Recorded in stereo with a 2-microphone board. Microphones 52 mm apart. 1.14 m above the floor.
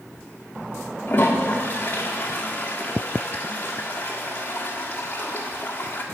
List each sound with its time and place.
1.1 s a toilet flushing: 35° left (ahead or behind), 1.5 m